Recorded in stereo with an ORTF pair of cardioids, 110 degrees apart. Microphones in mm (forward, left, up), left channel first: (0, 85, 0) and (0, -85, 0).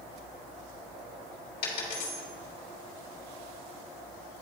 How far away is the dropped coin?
About 2.5 m.